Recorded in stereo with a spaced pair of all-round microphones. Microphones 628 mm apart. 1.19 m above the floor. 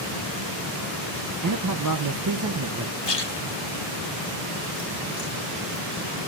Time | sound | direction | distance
1.4 | a man speaking | 30° right (ahead or behind) | 0.5 m
3.0 | a splash | 40° left (ahead or behind) | 1.0 m